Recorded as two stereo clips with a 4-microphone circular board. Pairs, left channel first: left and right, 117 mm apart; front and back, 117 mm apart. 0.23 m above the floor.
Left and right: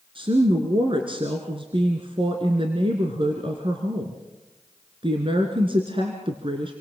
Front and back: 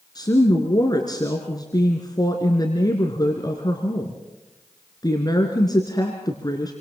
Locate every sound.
0.1 s a woman speaking: 55° right, 2.5 m